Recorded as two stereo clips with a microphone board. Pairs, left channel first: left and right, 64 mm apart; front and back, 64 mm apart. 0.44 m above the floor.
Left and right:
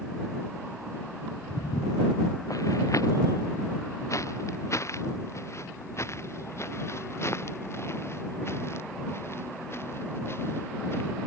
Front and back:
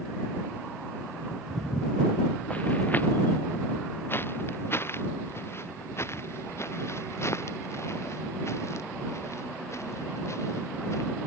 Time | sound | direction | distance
1.5 | footsteps | 90° left | ?